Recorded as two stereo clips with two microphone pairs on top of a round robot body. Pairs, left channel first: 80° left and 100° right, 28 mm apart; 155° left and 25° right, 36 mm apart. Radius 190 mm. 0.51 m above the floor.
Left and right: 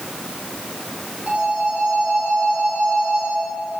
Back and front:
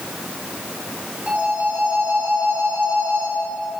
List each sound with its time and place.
1.3 s a phone ringing: 60° right, 4.5 m